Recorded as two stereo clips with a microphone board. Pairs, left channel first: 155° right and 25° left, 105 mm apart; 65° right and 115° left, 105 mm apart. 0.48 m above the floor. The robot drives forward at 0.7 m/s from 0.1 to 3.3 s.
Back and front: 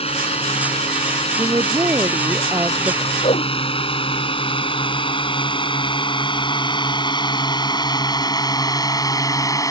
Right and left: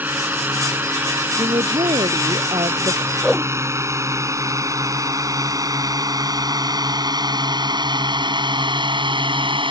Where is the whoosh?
160° right.